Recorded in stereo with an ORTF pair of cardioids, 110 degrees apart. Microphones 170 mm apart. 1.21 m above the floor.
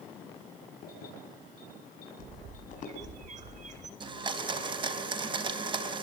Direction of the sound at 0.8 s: 60° left.